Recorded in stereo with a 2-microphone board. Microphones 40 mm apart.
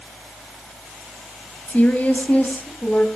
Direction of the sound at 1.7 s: 40° left (ahead or behind).